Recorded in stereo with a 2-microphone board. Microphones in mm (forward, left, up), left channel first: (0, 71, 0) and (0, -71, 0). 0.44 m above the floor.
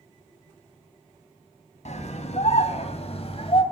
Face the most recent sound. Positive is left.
turn(degrees=45)  # may be behind; listen again after turning